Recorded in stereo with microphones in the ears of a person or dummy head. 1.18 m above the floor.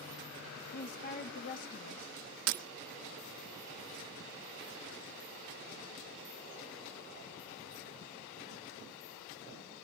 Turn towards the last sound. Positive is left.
turn(degrees=-75)  # may be behind; listen again after turning